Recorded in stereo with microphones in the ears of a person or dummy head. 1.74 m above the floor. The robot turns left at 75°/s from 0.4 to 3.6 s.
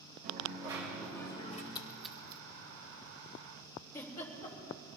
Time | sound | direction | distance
0.2 | a dropped coin | 130° right | 4 m
1.8 | a splash | 30° left (ahead or behind) | 1.2 m
3.9 | a giggle | 25° left (ahead or behind) | 3.5 m